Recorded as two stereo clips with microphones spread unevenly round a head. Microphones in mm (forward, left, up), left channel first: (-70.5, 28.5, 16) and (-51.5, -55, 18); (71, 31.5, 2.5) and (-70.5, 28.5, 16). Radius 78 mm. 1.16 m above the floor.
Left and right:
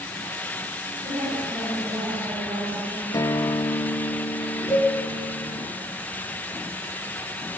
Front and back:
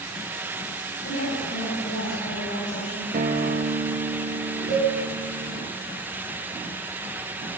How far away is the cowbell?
About 7.5 m.